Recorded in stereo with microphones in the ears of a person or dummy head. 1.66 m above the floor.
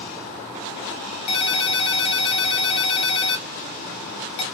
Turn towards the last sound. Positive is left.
turn(degrees=35)  # may be behind; listen again after turning